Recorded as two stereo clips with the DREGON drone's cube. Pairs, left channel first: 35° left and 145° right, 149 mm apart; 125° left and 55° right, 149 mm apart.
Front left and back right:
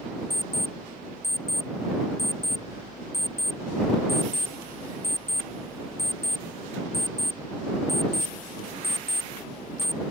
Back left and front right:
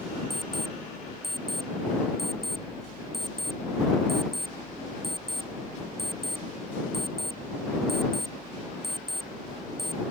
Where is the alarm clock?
35° left.